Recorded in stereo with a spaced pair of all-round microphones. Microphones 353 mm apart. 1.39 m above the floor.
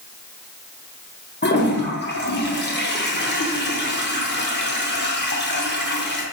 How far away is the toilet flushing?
About 0.6 m.